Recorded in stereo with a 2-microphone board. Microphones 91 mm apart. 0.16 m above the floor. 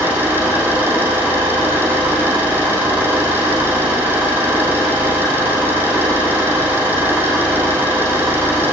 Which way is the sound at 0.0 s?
20° right (ahead or behind).